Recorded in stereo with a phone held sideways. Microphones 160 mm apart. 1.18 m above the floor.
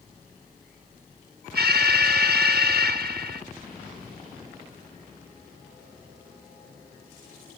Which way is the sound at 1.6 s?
80° right.